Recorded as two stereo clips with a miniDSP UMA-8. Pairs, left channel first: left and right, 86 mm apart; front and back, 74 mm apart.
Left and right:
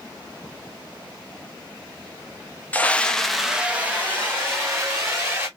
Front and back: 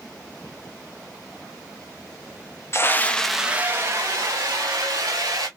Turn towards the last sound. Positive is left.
turn(degrees=-155)